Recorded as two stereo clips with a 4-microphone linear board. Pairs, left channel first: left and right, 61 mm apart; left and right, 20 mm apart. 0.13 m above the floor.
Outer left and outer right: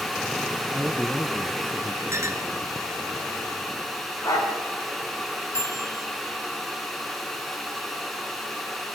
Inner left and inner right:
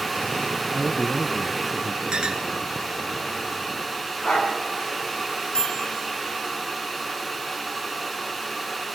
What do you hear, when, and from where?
0.7 s a man speaking: 20° right (ahead or behind), 1.3 m
2.1 s a clink: 50° right (ahead or behind), 1.6 m
4.2 s a dog barking: 75° left (ahead or behind), 5.5 m
5.5 s a microwave: 50° left (ahead or behind), 2 m